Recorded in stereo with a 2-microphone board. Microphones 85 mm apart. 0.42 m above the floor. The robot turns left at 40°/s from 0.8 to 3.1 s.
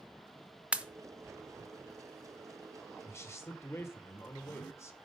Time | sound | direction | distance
0.7 | a pop | 15° right (ahead or behind) | 0.7 m
3.0 | a man speaking | 35° left (ahead or behind) | 1.3 m